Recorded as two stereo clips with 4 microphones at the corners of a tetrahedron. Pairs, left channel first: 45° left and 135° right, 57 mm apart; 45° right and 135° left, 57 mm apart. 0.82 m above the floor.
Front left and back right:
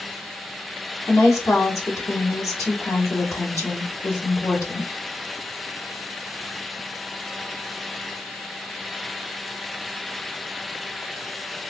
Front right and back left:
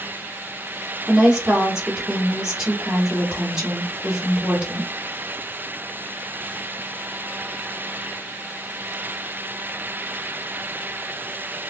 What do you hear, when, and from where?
1.1 s a woman speaking: 60° left, 1.7 m